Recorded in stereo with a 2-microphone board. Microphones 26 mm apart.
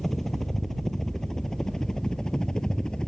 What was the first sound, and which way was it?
A helicopter, 10° left (ahead or behind).